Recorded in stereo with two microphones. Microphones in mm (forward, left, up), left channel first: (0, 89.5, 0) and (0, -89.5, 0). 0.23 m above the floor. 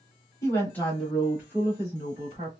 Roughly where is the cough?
No cough in this recording.